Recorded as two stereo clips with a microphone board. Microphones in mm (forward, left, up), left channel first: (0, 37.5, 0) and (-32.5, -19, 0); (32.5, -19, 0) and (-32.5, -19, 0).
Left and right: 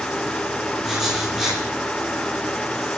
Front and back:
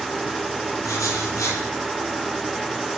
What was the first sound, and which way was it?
Writing, 35° right.